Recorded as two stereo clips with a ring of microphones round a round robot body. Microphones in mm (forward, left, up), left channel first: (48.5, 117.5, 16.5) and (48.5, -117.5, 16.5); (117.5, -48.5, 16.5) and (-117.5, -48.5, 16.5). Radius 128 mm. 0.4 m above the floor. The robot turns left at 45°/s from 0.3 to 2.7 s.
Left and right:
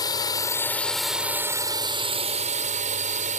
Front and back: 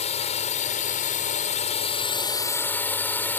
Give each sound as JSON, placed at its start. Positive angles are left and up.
{"t": 0.0, "sound": "a drone", "azimuth_deg": 35}